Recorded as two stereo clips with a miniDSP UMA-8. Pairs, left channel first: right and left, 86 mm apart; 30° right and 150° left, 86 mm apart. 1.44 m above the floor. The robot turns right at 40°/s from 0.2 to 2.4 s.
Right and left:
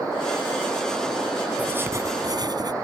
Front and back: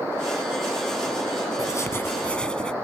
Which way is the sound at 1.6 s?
20° left.